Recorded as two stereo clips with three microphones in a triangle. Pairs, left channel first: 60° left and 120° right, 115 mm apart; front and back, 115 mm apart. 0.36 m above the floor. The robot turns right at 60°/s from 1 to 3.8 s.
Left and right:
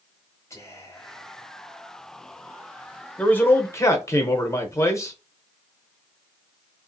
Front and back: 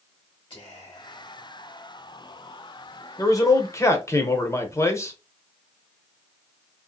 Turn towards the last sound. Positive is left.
turn(degrees=35)